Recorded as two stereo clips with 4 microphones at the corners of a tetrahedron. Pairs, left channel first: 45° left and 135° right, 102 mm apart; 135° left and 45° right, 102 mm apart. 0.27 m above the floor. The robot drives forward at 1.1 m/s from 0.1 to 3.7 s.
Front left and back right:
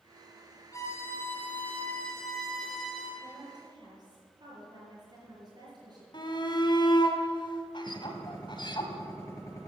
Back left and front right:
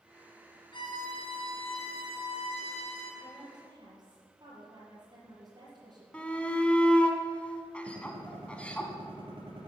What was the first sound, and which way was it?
A violin, 100° left.